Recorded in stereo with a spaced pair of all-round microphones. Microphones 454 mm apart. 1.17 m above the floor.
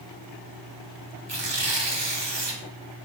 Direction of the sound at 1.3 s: 65° right (ahead or behind).